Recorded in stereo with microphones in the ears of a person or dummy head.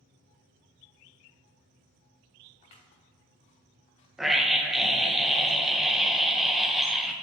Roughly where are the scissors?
Left.